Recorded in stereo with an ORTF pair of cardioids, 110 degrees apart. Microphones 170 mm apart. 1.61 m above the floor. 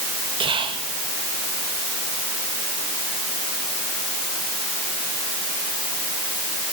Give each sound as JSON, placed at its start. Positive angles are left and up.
{"t": 0.4, "sound": "whispering", "azimuth_deg": -30, "distance_m": 2.5}